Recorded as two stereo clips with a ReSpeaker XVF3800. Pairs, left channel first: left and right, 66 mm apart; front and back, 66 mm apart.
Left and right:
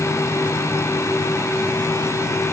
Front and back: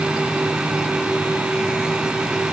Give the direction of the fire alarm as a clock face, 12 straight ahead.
I don't hear a fire alarm.